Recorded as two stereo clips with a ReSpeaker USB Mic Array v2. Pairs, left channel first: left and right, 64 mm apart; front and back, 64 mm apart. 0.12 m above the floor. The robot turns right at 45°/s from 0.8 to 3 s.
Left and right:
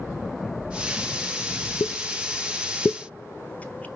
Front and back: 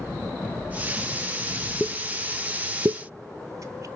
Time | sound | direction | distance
1.8 | a pop | 100° left | 0.6 m